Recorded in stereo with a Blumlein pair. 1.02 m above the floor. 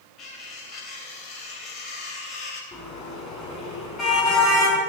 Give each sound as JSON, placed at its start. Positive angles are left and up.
{"t": 0.2, "sound": "cutlery clinking", "azimuth_deg": 30, "distance_m": 3.5}
{"t": 2.7, "sound": "a car horn", "azimuth_deg": 25, "distance_m": 4.0}